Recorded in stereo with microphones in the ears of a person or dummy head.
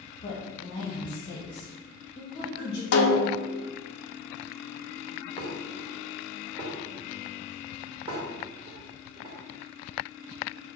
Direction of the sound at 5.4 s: 25° right (ahead or behind).